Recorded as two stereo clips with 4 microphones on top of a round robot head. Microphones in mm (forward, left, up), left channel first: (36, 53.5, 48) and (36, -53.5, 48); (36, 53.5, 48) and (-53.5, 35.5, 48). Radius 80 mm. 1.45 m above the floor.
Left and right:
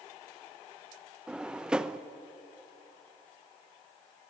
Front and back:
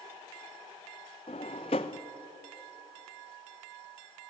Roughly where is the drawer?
Ahead.